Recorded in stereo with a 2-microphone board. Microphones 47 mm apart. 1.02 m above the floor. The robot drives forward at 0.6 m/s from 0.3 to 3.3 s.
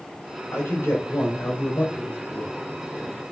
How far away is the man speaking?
About 3.5 m.